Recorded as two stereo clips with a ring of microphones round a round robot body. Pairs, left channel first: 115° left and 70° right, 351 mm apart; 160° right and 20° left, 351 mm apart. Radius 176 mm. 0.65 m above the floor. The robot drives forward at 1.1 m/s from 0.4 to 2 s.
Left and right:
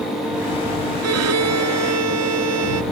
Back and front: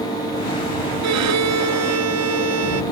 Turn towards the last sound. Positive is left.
turn(degrees=-25)